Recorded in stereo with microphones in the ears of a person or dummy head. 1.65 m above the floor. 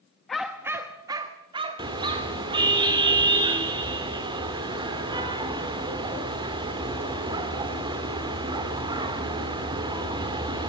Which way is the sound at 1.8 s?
25° right (ahead or behind).